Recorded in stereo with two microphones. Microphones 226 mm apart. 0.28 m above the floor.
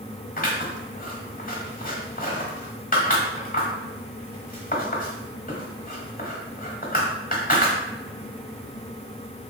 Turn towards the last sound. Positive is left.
turn(degrees=40)  # may be behind; listen again after turning